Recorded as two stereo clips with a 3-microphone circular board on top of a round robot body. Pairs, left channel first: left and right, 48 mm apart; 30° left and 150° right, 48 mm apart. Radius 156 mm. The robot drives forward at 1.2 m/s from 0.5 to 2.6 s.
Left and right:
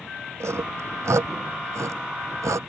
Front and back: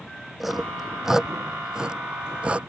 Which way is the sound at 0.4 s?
65° right.